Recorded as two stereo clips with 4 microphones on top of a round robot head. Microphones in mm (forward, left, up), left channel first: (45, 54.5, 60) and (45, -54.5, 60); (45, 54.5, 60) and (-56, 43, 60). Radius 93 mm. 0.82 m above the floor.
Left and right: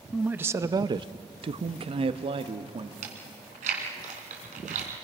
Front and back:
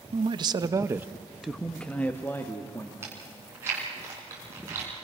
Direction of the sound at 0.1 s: 170° right.